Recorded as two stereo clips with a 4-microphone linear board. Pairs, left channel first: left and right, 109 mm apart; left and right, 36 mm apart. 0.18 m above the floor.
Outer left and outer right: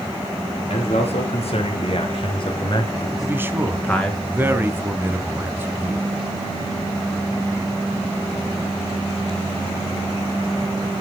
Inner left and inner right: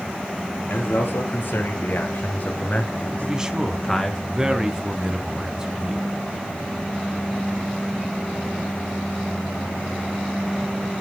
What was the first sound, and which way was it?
A man speaking, 70° left (ahead or behind).